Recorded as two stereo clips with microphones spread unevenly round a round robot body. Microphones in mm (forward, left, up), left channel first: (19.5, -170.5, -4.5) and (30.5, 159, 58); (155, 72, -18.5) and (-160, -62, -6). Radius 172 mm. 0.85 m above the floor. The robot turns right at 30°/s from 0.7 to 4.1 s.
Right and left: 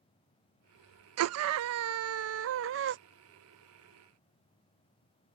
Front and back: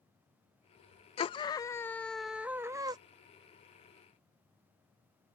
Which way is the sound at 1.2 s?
75° left.